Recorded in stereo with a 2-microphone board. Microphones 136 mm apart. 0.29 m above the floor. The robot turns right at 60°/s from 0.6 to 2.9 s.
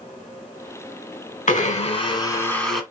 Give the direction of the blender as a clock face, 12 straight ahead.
9 o'clock.